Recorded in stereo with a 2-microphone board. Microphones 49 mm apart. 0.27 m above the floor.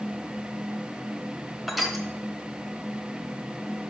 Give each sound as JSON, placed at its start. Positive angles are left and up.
{"t": 1.7, "sound": "crushing", "side_deg": -5, "distance_m": 1.0}